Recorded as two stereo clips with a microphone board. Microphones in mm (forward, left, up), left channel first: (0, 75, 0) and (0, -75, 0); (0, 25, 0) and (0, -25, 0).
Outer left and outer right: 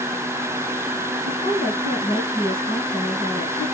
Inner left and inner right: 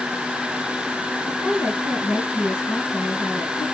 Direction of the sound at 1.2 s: 50° left (ahead or behind).